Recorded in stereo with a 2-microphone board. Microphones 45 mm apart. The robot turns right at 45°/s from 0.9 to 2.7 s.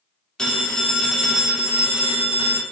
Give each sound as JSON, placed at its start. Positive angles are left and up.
{"t": 0.4, "sound": "a phone ringing", "azimuth_deg": 160, "distance_m": 2.0}